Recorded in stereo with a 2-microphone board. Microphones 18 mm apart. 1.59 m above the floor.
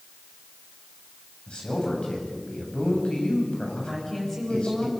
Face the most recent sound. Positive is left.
turn(degrees=20)  # may be behind; listen again after turning